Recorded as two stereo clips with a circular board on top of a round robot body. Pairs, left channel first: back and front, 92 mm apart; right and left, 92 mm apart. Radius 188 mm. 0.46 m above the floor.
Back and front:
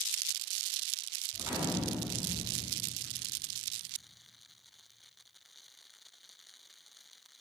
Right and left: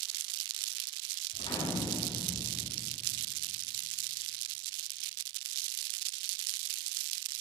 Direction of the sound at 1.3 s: 70° right.